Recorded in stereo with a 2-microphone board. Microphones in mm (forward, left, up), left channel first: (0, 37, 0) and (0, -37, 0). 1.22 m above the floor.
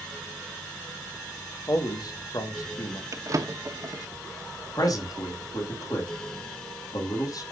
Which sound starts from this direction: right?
A drawer, at 3.1 s.